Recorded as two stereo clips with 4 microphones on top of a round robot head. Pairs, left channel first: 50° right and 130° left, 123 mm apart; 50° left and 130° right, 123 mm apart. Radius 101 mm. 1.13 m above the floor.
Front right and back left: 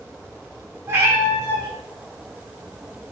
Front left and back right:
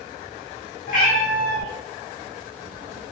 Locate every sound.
0.9 s a cat meowing: 65° left, 4 m